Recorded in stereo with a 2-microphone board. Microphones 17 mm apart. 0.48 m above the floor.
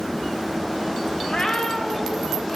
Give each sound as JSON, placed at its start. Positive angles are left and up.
{"t": 1.2, "sound": "a cat meowing", "side_deg": 60, "distance_m": 1.0}